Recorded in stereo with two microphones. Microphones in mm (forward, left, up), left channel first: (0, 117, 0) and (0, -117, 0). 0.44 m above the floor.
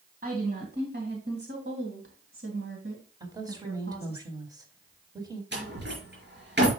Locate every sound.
0.2 s a woman speaking: 40° right (ahead or behind), 3 m; by 4.2 s 75° right (ahead or behind), 2.5 m
3.2 s a woman speaking: 15° right (ahead or behind), 3 m
5.5 s a door slam: 50° right (ahead or behind), 4.5 m